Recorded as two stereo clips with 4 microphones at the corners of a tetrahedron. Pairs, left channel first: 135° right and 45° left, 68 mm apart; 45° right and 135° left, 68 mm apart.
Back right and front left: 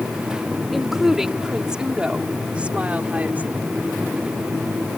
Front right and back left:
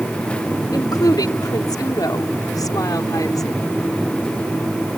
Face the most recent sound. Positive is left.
turn(degrees=-20)